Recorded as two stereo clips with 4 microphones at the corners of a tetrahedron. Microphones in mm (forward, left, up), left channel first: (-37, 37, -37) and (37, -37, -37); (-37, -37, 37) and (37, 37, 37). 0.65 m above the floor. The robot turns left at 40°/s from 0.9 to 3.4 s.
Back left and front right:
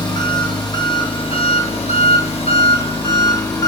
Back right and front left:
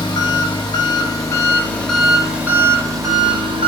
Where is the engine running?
Straight behind, 0.8 m; by 3.7 s 80° left, 0.8 m.